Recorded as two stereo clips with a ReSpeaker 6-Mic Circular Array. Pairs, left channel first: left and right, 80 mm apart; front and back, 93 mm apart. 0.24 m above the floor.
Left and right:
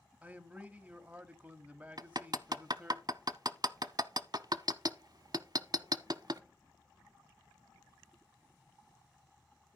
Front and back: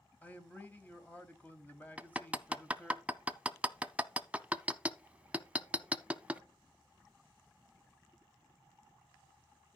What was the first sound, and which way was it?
A man speaking, 40° right.